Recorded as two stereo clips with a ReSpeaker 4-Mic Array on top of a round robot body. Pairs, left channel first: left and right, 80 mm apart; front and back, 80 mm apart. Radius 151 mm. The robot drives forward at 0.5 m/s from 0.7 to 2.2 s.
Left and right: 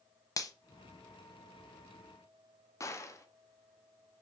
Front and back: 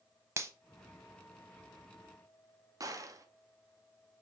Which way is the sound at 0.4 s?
130° left.